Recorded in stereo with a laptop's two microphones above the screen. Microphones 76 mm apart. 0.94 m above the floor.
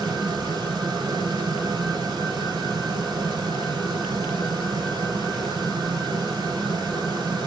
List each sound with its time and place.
0.0 s a fan: 75° right (ahead or behind), 1.7 m